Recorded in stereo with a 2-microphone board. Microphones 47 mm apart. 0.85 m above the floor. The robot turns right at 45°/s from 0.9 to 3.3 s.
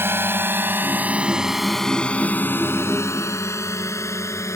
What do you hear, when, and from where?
0.0 s a drone: 55° right (ahead or behind); by 4.6 s 85° left